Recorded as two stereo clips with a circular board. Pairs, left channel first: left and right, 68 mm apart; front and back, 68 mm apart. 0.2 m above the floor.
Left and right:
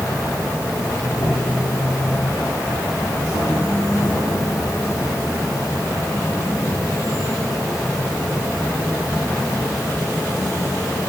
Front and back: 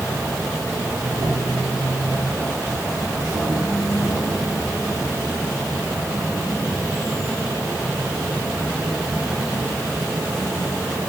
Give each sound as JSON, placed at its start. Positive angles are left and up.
{"t": 0.0, "sound": "an insect", "azimuth_deg": 125, "distance_m": 3.5}